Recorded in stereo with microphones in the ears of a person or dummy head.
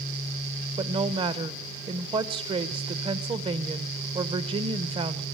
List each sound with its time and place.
0.8 s a woman speaking: 25° right (ahead or behind), 1.0 m